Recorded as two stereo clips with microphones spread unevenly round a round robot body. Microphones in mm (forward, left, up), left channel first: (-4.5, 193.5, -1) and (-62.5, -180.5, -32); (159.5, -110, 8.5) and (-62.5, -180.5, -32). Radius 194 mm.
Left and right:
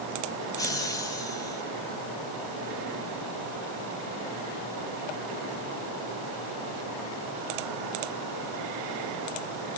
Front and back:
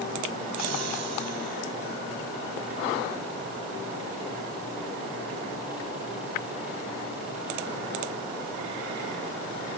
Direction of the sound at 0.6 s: 160° left.